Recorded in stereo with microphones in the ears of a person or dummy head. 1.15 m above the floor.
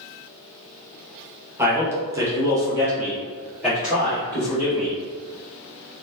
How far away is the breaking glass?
No breaking glass in this recording.